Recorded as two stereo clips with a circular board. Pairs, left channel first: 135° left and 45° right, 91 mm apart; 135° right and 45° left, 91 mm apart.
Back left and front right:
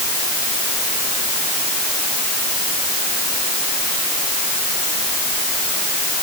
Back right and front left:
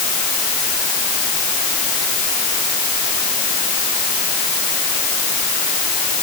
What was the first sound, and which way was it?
Only background noise.